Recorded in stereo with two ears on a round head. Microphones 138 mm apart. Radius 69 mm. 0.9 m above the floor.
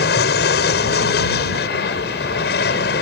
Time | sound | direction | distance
0.0 | an aircraft | 70° left (ahead or behind) | ?